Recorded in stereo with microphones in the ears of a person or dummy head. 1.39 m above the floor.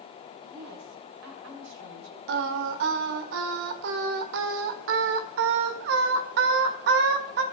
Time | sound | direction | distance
0.4 | a woman speaking | 85° right | 6.5 m
2.3 | singing | 55° right (ahead or behind) | 1.5 m